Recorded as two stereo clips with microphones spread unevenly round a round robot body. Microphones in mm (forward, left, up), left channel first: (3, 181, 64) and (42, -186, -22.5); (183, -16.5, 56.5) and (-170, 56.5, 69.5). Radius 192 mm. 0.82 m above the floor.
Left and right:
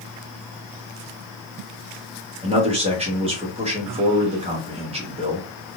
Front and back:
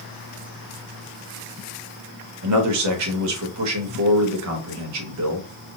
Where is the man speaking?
150° right, 1.0 m.